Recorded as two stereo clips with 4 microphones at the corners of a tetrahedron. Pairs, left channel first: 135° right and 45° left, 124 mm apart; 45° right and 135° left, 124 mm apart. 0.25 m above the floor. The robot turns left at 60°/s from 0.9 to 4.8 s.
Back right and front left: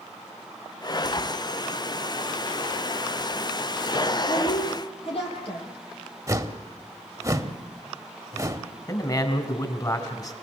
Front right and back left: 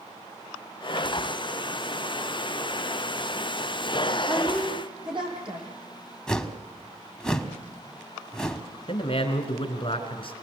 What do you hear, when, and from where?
4.3 s a woman speaking: 140° right, 7.5 m; by 5.7 s 175° right, 7.5 m
6.3 s a whoosh: 30° left, 1.2 m
8.9 s a man speaking: 80° right, 2.5 m